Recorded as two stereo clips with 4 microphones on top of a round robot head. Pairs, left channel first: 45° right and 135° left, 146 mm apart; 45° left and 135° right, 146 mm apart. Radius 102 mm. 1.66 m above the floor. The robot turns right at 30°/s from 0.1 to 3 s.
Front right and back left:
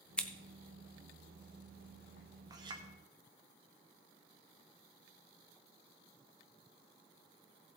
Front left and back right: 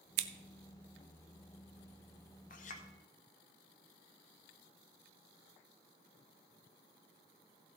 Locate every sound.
0.2 s scissors: 130° right, 0.5 m; by 0.3 s 125° right, 0.5 m
2.5 s a clink: 70° left, 0.8 m; by 2.9 s 80° left, 0.8 m